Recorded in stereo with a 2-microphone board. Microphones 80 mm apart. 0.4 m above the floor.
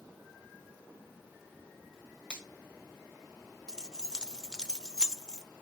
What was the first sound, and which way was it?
A finger snap, 10° left (ahead or behind).